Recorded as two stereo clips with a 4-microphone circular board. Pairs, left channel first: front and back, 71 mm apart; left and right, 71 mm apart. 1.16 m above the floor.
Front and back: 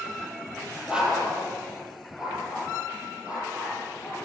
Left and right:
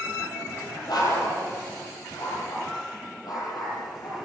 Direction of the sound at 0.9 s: 100° left.